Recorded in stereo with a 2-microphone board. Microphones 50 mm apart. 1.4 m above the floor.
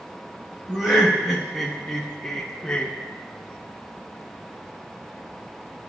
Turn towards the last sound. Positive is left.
turn(degrees=20)  # may be behind; listen again after turning